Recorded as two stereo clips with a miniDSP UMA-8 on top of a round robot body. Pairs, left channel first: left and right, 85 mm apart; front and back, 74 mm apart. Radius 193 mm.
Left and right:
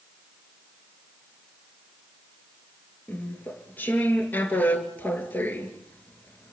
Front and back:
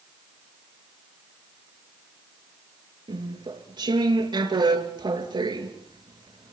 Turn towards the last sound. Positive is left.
turn(degrees=160)